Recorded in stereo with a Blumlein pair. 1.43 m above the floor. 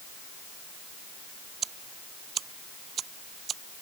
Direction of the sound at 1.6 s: 25° right.